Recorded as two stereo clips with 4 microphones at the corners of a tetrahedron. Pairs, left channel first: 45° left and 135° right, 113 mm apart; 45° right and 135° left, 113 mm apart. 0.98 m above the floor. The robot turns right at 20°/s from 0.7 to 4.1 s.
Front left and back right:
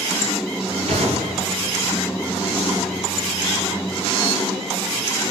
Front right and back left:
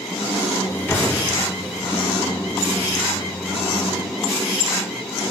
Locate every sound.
0.9 s an explosion: 115° right, 2.5 m; by 1.6 s 105° right, 2.5 m